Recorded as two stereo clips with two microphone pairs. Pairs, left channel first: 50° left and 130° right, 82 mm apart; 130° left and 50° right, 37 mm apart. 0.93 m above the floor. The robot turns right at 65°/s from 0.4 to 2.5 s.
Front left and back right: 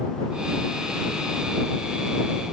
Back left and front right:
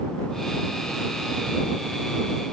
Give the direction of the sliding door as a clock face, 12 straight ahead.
I don't hear a sliding door.